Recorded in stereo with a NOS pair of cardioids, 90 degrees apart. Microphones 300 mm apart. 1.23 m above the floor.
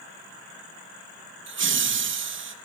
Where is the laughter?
40° right, 1.0 m.